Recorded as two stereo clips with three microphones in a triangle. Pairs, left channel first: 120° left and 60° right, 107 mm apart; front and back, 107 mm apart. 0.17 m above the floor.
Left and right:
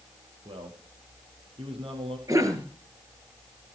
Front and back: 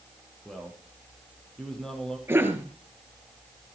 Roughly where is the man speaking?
Right.